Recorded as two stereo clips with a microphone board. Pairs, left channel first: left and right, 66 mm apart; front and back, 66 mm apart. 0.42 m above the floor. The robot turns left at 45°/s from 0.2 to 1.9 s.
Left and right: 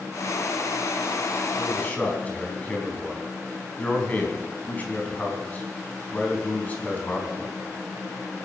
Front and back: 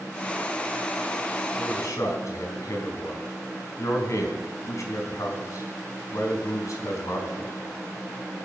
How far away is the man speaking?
About 4 m.